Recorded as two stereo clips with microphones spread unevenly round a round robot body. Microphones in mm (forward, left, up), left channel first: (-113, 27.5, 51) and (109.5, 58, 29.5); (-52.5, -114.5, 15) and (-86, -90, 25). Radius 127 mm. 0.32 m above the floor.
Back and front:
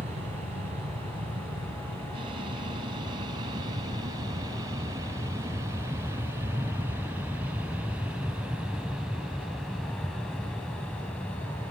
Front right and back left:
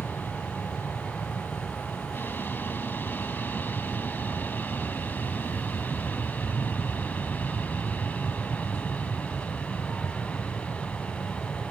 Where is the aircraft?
50° right; by 11.7 s 85° right.